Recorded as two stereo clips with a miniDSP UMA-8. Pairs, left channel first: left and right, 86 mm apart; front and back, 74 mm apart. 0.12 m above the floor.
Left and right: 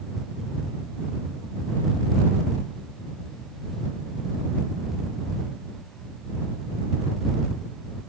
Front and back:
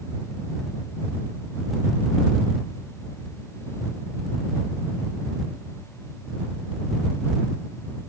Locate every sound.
Only background noise.